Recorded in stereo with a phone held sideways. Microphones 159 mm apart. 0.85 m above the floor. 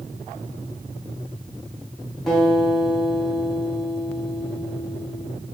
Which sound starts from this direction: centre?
A guitar, at 2.3 s.